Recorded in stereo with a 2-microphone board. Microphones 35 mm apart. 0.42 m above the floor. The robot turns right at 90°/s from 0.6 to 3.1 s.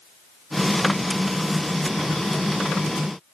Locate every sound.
Only background noise.